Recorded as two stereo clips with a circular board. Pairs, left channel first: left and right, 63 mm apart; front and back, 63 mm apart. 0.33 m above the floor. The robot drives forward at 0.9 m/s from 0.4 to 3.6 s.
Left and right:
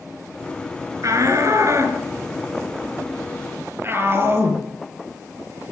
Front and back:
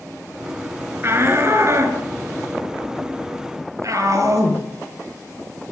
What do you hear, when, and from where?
1.0 s a shout: 130° right, 5 m; by 4.6 s 145° right, 6.5 m